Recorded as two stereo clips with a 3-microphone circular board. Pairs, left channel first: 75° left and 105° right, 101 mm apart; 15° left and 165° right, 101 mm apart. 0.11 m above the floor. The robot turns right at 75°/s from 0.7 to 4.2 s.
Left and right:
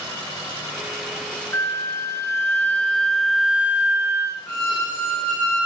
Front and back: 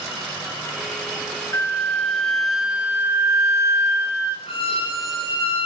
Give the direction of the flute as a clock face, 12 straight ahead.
11 o'clock.